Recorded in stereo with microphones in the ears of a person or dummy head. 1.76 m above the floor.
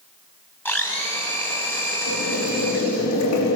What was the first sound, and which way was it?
A blender, 10° left (ahead or behind).